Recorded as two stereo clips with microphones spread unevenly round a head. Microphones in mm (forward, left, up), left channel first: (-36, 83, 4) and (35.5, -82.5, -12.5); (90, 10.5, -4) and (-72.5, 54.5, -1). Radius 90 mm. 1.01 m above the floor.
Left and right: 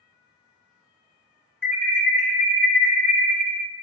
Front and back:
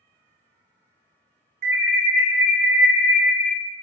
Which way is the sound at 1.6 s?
165° right.